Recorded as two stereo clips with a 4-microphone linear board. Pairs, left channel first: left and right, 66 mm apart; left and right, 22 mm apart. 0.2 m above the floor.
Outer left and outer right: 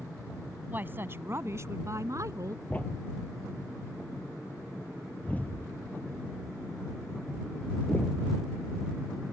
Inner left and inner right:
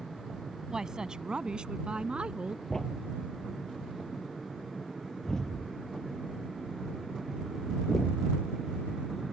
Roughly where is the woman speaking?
Right.